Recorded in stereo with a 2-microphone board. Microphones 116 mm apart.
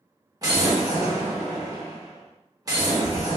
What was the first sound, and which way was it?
An explosion, 30° right (ahead or behind).